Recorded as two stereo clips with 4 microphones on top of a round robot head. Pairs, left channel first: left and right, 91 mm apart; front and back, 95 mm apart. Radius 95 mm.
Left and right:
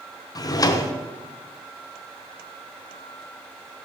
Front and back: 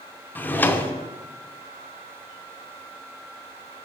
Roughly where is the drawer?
Ahead left.